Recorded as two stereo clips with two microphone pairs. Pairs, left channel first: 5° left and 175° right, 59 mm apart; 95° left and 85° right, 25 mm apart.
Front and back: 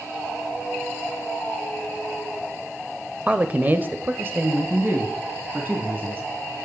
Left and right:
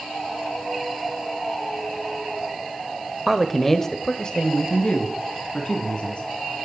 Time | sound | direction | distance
3.3 | a man speaking | 145° right | 0.9 m